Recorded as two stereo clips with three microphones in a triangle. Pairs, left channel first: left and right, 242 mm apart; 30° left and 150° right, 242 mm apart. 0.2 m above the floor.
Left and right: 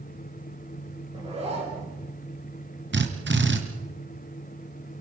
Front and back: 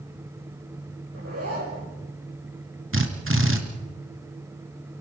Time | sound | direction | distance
1.1 | a zipper | 155° right | 7.5 m
2.9 | a drill | 125° right | 2.5 m